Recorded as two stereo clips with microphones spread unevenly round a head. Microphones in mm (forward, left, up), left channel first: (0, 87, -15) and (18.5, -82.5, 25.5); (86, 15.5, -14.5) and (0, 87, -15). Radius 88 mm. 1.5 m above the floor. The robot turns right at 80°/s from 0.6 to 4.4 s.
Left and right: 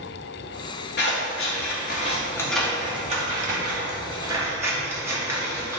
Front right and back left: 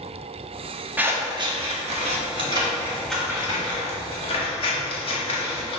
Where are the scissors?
65° left, 1.4 m; by 5.8 s 20° right, 1.4 m.